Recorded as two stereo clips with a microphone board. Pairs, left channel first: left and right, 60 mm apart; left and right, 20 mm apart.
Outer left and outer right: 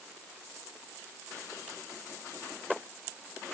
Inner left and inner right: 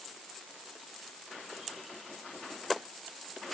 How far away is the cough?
No cough in this recording.